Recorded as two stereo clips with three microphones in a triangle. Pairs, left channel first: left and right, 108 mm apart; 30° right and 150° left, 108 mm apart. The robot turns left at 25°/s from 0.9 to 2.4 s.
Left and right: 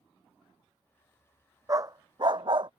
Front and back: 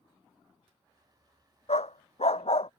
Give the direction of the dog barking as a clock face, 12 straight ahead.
1 o'clock.